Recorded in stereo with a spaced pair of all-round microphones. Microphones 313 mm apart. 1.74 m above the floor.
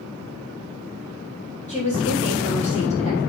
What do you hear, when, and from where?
1.7 s a woman speaking: 20° left (ahead or behind), 6.5 m